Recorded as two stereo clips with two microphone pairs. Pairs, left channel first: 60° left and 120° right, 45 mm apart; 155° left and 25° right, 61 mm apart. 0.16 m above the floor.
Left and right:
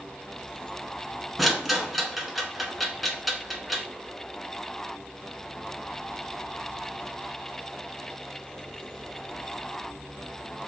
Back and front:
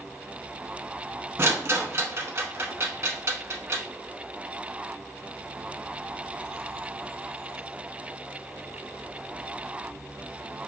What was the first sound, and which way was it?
A rattle, 35° right.